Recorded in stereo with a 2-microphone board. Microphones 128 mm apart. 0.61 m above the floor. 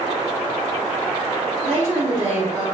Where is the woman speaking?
60° right (ahead or behind), 1.9 m.